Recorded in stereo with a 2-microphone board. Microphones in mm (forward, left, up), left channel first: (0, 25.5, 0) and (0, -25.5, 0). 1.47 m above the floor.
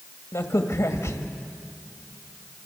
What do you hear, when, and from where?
0.3 s a crack: 80° left, 1.9 m